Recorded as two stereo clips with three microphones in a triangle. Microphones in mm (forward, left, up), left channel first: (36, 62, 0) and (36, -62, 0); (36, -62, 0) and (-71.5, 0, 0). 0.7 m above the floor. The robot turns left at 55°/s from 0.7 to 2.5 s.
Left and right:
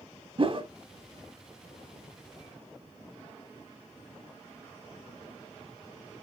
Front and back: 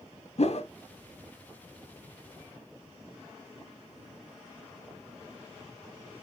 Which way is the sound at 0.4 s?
50° right.